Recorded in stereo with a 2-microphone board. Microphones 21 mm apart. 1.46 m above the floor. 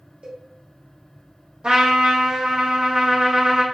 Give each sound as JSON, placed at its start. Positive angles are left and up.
{"t": 0.2, "sound": "a cowbell", "side_deg": -60, "distance_m": 0.8}
{"t": 1.6, "sound": "a trumpet", "side_deg": -45, "distance_m": 0.8}